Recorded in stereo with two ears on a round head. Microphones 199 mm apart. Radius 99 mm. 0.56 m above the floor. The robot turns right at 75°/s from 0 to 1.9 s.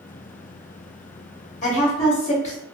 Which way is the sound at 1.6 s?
35° left (ahead or behind).